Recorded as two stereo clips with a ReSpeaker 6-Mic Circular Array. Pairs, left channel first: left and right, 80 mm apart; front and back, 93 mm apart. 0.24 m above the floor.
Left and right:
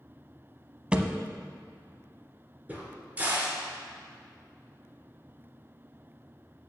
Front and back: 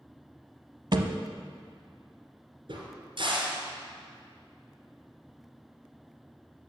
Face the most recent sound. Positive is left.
turn(degrees=-160)